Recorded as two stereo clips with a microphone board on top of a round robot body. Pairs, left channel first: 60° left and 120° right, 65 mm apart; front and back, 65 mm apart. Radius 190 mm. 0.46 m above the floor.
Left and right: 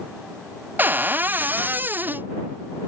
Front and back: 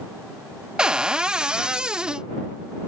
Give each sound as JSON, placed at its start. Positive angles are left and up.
{"t": 0.8, "sound": "a cupboard door", "azimuth_deg": -115}